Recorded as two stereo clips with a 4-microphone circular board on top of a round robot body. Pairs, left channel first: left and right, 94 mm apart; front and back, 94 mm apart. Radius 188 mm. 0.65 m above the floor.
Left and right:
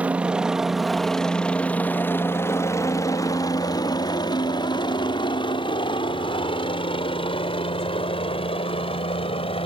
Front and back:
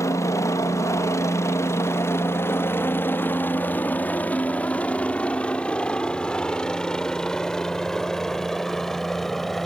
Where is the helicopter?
25° right; by 9.7 s 90° left.